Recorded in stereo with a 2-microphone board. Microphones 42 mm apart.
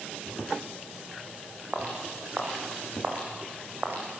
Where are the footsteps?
35° right (ahead or behind), 6 m; by 4.0 s 55° right (ahead or behind), 4.5 m.